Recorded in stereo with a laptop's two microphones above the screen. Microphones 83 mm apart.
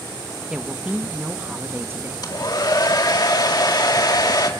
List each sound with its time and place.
0.5 s a woman speaking: 10° right (ahead or behind), 1.5 m; by 2.3 s 30° right (ahead or behind), 2 m
2.2 s a hair dryer: 60° left (ahead or behind), 2 m